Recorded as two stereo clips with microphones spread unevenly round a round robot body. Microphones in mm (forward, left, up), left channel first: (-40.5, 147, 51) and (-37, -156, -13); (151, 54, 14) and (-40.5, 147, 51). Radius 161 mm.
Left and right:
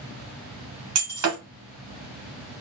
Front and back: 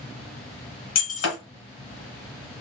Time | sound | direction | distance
0.9 | breaking glass | 45° right | 1.2 m